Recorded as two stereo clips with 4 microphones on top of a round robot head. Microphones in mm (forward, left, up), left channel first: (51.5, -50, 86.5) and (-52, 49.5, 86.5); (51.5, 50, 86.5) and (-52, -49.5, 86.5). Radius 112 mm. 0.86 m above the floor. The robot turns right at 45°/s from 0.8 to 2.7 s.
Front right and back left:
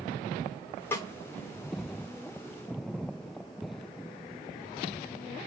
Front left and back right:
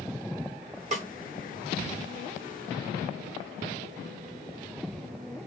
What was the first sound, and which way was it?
A snare drum, 115° right.